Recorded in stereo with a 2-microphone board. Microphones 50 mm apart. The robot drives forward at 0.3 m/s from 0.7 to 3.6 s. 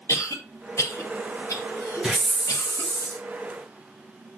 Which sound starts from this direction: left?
A cough, at 0.1 s.